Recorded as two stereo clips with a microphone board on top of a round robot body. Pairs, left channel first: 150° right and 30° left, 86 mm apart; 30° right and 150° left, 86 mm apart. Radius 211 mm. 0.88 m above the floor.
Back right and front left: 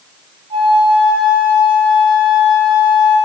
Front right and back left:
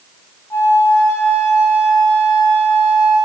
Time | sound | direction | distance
0.5 | a flute | 35° left | 1.4 m